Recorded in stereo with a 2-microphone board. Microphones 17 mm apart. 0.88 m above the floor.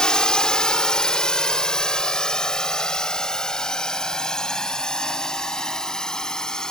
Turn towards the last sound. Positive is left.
turn(degrees=40)  # may be behind; listen again after turning